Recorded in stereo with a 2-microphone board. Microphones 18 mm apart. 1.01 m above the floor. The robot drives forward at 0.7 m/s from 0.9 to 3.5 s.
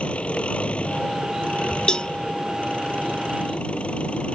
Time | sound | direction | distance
0.0 | an engine running | 90° left | ?
1.9 | a cowbell | 50° left (ahead or behind) | ?